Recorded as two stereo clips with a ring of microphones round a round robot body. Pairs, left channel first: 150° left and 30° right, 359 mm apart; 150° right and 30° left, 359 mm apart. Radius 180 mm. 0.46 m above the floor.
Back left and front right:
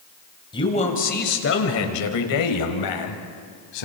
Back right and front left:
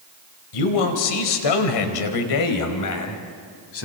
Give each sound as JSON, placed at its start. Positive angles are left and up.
{"t": 0.5, "sound": "a man speaking", "azimuth_deg": -135, "distance_m": 2.5}